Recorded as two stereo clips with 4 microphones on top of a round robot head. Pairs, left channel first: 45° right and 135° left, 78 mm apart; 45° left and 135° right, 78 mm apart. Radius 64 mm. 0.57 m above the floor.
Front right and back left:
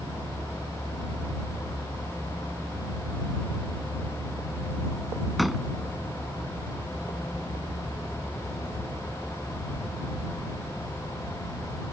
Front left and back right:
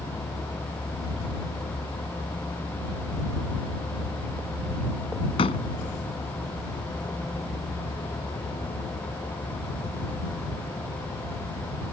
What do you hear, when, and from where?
0.0 s a vehicle: 80° left; by 11.9 s 45° left
5.4 s a door slam: 45° left